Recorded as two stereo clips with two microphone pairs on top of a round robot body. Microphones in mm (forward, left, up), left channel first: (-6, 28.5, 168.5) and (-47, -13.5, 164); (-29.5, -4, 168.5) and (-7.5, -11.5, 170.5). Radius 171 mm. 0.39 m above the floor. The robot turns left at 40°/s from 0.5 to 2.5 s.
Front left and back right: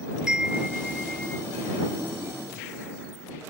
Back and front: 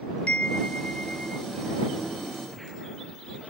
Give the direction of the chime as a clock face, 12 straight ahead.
7 o'clock.